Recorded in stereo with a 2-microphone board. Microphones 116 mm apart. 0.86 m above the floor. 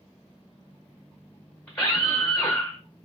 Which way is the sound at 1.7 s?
10° left (ahead or behind).